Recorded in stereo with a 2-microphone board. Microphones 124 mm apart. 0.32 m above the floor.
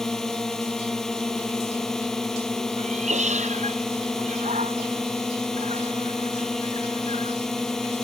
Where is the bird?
No bird in this recording.